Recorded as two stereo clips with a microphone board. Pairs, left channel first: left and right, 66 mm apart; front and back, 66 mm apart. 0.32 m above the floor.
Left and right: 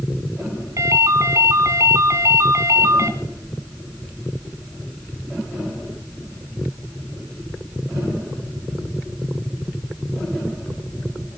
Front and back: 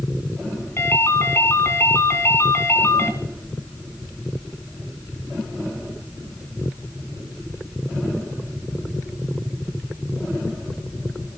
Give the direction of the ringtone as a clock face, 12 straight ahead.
2 o'clock.